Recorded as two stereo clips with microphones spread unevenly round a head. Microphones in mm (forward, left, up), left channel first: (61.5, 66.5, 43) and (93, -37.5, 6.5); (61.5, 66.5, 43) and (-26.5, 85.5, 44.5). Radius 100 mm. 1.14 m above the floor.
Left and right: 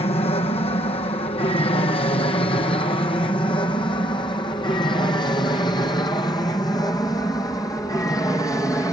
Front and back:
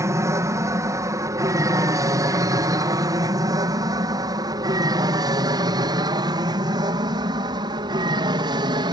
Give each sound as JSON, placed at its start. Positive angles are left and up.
{"t": 0.0, "sound": "an aircraft", "azimuth_deg": 135}